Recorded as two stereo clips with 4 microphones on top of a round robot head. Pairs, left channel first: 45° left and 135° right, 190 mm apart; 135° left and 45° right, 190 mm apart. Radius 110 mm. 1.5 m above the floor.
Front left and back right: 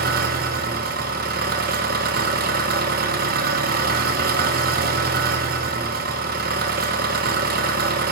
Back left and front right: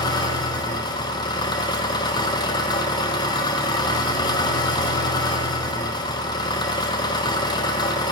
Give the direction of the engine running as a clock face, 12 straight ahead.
5 o'clock.